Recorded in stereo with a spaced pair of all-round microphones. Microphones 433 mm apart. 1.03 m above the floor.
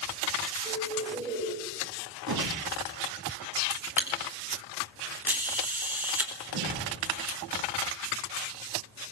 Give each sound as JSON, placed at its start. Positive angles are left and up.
{"t": 0.7, "sound": "a bird", "side_deg": -10, "distance_m": 4.0}
{"t": 2.3, "sound": "a whoosh", "side_deg": -55, "distance_m": 2.5}
{"t": 3.7, "sound": "a camera shutter", "side_deg": -5, "distance_m": 4.0}
{"t": 6.5, "sound": "a whoosh", "side_deg": -75, "distance_m": 6.5}